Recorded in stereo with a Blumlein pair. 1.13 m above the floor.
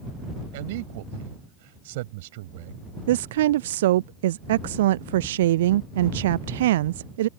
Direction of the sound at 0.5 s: 50° right.